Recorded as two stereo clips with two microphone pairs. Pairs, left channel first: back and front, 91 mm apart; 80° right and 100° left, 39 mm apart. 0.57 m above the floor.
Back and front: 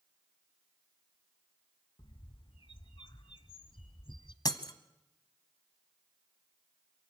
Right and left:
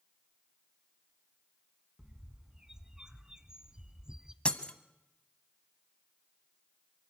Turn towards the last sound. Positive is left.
turn(degrees=-140)